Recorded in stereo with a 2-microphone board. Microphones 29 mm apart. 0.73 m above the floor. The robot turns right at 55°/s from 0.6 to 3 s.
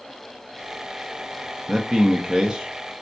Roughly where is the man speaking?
Centre.